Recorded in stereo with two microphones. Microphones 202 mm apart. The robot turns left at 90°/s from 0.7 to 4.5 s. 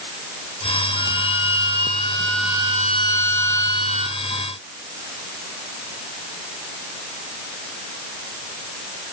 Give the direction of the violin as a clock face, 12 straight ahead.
8 o'clock.